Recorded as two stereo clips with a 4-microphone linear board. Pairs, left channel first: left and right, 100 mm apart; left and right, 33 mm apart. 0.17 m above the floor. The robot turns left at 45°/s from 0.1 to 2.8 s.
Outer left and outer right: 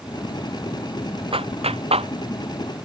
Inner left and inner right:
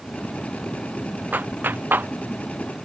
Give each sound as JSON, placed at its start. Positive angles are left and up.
{"t": 1.3, "sound": "a clap", "side_deg": -70}